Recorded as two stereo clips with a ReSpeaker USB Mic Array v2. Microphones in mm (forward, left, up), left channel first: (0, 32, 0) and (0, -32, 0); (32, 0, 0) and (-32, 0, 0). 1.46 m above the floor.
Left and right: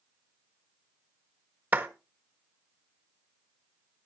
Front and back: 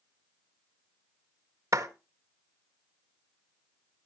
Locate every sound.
1.7 s a clap: 150° right, 1.6 m